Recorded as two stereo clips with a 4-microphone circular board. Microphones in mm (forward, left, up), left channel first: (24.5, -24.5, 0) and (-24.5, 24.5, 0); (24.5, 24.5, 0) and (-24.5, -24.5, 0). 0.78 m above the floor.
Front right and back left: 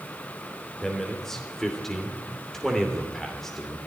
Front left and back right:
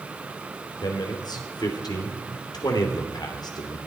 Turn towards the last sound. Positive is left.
turn(degrees=40)